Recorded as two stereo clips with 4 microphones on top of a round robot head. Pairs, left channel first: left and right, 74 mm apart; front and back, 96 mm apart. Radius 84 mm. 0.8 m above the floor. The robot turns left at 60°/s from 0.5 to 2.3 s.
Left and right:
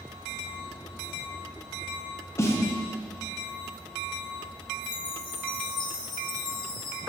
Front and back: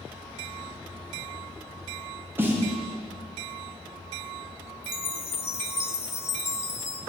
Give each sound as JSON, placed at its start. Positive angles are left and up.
{"t": 2.4, "sound": "a snare drum", "azimuth_deg": 120, "distance_m": 1.3}
{"t": 4.8, "sound": "a chime", "azimuth_deg": 65, "distance_m": 0.6}